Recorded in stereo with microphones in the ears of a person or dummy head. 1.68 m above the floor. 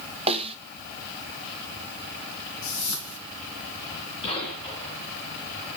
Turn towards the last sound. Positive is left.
turn(degrees=30)  # may be behind; listen again after turning